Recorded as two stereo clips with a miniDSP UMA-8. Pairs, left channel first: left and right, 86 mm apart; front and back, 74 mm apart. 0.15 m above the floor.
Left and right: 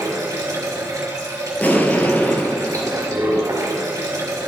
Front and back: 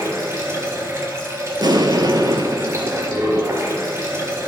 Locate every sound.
0.0 s running water: 130° right, 2.5 m
1.6 s an explosion: 160° left, 0.7 m